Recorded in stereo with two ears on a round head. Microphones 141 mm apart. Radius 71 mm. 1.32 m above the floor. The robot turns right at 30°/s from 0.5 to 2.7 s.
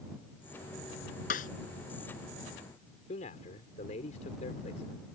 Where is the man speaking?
55° left (ahead or behind).